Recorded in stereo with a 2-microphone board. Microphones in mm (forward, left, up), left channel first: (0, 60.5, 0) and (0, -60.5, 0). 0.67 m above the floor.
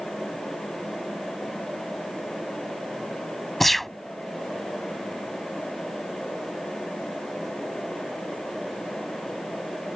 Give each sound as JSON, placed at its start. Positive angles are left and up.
{"t": 3.6, "sound": "a gunshot", "side_deg": 0}